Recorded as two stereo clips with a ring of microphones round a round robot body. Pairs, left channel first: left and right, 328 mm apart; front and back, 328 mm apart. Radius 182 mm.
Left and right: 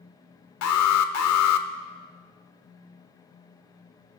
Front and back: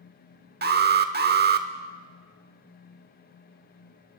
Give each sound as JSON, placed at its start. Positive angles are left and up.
{"t": 0.6, "sound": "an alarm", "azimuth_deg": 125, "distance_m": 1.0}